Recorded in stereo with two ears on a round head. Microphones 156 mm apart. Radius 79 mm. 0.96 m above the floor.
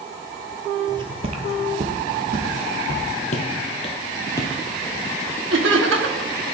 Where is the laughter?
80° right, 1.5 m.